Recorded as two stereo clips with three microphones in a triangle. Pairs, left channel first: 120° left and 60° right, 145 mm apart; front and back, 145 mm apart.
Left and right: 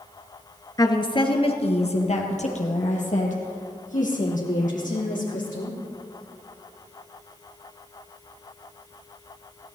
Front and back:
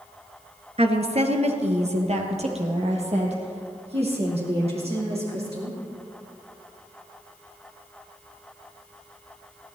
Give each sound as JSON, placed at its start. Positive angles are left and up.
{"t": 0.8, "sound": "a woman speaking", "azimuth_deg": 170, "distance_m": 1.5}